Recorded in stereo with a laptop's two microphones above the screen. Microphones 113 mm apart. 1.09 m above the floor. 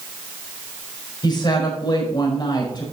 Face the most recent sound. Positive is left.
turn(degrees=40)  # may be behind; listen again after turning